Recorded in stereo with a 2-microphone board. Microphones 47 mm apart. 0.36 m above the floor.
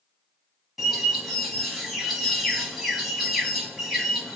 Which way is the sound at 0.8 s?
Centre (ahead or behind).